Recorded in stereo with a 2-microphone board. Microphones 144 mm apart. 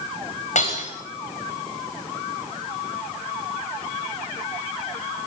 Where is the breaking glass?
55° left (ahead or behind), 9.5 m.